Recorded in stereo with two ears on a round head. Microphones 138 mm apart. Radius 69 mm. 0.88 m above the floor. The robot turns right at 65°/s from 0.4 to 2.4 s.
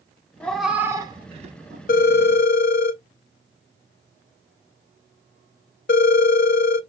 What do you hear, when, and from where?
0.4 s a cat meowing: 10° left (ahead or behind), 0.6 m; by 1.8 s 60° right (ahead or behind), 0.6 m
1.9 s a phone ringing: 60° left (ahead or behind), 0.5 m; by 6.8 s 70° left (ahead or behind), 0.5 m